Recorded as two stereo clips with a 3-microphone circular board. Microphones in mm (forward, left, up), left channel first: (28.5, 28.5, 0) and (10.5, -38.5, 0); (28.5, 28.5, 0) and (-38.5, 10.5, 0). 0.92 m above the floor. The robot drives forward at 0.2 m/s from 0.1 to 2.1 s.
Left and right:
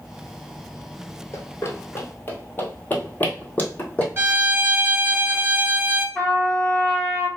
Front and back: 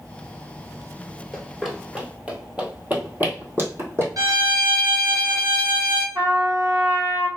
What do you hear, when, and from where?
1.3 s running footsteps: 95° left, 1.2 m; by 4.1 s 145° left, 2.5 m
4.2 s a violin: 165° right, 1.8 m
6.2 s a trumpet: 150° left, 1.8 m